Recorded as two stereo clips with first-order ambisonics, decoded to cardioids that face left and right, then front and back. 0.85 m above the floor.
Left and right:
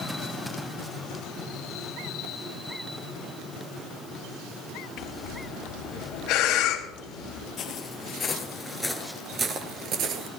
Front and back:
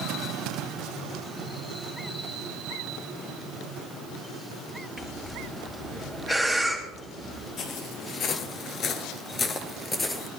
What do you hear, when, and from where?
5.0 s breathing: 85° left, 1.7 m
7.6 s footsteps: 45° left, 1.2 m; by 10.3 s 80° right, 1.1 m